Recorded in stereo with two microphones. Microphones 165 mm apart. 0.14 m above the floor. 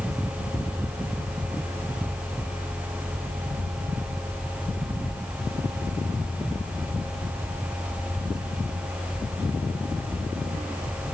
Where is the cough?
I don't hear a cough.